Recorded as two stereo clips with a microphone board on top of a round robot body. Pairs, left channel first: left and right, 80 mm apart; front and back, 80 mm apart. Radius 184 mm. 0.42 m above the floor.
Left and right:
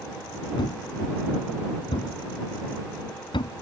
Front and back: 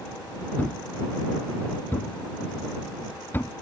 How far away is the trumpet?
I don't hear a trumpet.